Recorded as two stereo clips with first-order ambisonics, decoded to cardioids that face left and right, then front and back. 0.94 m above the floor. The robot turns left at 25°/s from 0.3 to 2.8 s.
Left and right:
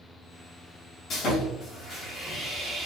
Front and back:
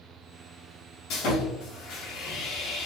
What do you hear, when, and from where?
1.1 s sawing: 35° left, 1.1 m; by 2.9 s 5° right, 1.1 m